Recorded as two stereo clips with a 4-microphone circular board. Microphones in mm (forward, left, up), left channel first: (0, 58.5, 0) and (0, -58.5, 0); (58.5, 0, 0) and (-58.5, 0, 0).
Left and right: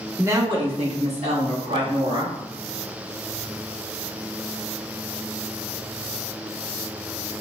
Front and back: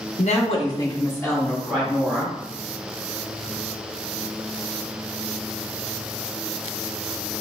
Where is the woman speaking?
15° right, 0.8 m; by 2.4 s 90° right, 2.5 m.